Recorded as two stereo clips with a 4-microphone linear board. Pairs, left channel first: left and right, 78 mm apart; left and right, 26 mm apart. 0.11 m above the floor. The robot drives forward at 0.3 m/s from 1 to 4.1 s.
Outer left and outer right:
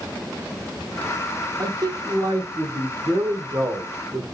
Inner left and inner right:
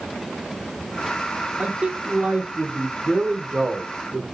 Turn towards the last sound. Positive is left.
turn(degrees=-45)  # may be behind; listen again after turning